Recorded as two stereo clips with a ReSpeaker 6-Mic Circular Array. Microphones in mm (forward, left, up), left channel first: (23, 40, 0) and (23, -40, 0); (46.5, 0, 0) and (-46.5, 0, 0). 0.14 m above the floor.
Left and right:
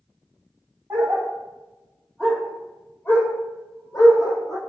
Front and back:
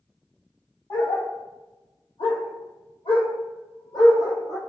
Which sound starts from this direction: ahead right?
A dog barking, at 0.9 s.